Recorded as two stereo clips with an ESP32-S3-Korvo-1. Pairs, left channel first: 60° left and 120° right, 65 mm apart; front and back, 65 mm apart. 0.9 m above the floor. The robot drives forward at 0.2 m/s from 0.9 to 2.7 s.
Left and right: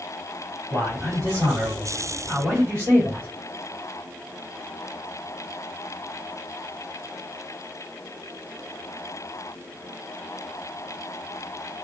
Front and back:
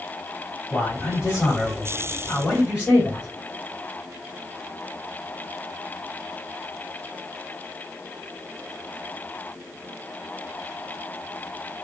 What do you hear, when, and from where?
0.7 s a man speaking: 85° right, 1.7 m; by 3.3 s 100° right, 1.7 m